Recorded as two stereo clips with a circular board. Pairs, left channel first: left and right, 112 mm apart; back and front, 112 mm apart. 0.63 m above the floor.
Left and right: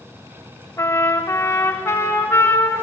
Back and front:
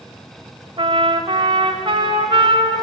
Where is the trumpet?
30° left, 1.7 m.